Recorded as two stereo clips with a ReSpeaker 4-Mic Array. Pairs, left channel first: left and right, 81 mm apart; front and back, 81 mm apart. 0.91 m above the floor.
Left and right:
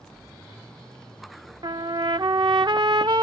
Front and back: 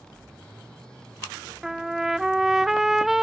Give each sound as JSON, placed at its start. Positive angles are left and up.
{"t": 1.6, "sound": "a trumpet", "azimuth_deg": -95}